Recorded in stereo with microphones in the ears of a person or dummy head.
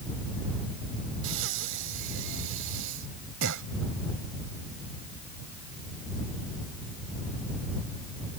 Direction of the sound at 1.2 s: 70° right (ahead or behind).